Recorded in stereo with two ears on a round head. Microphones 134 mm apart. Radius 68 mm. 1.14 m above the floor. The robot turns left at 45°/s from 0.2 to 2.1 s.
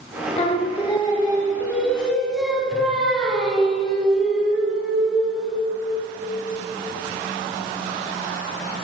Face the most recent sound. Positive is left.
turn(degrees=0)